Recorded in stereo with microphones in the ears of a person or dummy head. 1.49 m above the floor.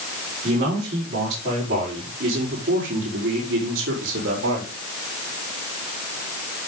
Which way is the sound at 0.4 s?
40° right (ahead or behind).